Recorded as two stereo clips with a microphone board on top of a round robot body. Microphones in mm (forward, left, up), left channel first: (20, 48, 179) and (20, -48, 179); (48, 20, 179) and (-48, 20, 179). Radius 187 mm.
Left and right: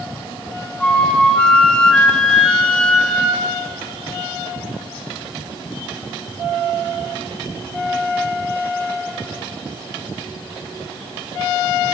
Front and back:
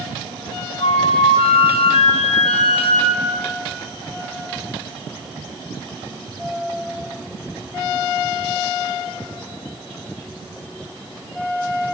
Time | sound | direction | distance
0.8 | a flute | 10° left | 4 m